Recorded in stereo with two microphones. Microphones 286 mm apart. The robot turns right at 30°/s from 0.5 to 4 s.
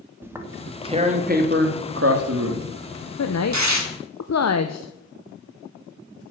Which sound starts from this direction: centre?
Tearing paper, at 0.2 s.